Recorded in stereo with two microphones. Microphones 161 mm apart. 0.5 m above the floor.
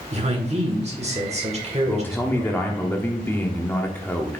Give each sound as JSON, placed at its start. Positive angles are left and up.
{"t": 0.1, "sound": "a man speaking", "side_deg": -40, "distance_m": 1.6}
{"t": 1.9, "sound": "a man speaking", "side_deg": 15, "distance_m": 0.9}